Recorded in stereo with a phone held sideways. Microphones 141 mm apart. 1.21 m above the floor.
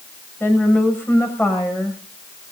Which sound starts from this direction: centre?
A woman speaking, at 0.4 s.